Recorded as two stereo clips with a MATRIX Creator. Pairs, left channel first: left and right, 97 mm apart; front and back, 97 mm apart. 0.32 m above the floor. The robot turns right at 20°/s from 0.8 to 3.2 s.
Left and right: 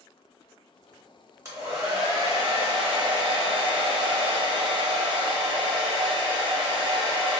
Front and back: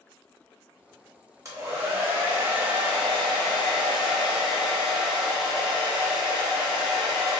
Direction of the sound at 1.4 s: 135° right.